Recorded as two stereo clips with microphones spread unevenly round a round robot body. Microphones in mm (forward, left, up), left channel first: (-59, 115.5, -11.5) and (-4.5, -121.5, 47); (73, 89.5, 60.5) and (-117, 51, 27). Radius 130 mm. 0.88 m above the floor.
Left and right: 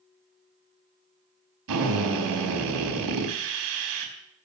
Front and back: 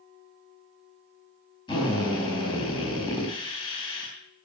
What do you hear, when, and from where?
1.7 s a drill: 60° right, 4 m